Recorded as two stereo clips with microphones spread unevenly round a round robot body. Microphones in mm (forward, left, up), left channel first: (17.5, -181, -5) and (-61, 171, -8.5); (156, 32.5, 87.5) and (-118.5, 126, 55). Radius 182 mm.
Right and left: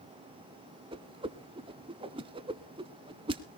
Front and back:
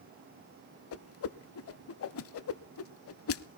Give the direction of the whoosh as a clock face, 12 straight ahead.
11 o'clock.